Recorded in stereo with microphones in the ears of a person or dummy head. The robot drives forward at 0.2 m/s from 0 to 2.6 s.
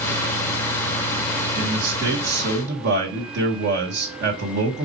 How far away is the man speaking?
About 1.3 m.